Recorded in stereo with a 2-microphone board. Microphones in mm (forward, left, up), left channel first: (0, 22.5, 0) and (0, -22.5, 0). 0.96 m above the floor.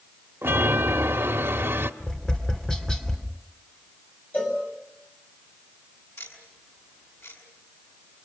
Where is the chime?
75° right (ahead or behind), 1.1 m.